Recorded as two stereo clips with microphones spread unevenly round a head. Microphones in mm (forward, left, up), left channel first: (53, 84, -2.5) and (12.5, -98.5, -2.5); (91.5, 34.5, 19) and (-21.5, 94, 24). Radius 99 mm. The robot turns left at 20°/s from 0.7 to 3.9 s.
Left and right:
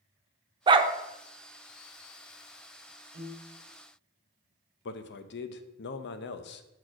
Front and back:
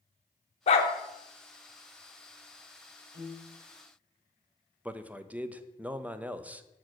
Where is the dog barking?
45° right, 0.6 m; by 0.9 s 50° right, 0.6 m.